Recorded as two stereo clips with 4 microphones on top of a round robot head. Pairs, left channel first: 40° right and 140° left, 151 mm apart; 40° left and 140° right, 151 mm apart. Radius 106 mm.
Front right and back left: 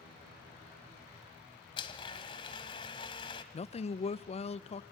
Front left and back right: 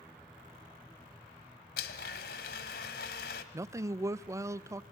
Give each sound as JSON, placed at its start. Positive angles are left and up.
{"t": 1.8, "sound": "a blender", "azimuth_deg": 20, "distance_m": 1.1}
{"t": 3.5, "sound": "a man speaking", "azimuth_deg": -75, "distance_m": 0.6}